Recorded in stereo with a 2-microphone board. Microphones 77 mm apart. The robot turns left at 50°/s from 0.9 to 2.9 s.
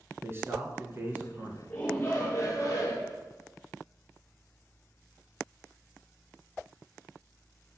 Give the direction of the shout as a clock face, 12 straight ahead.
7 o'clock.